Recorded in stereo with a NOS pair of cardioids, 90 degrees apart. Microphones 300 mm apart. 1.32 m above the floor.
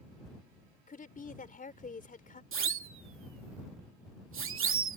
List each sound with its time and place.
0.9 s a woman speaking: 25° left
2.5 s a siren: 45° right